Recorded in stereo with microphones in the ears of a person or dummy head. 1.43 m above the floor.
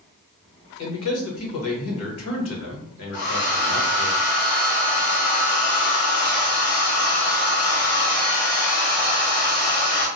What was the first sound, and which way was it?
A man speaking, 85° left.